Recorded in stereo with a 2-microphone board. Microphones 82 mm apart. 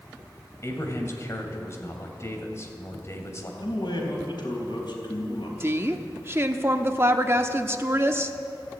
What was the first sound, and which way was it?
A man speaking, 35° left (ahead or behind).